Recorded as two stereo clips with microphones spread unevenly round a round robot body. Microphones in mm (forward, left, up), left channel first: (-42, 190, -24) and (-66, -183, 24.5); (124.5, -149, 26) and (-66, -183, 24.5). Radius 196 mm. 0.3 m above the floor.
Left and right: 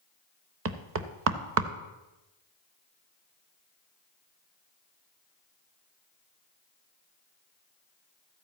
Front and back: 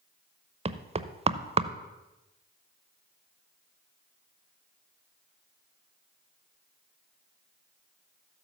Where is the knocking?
135° right, 0.7 m.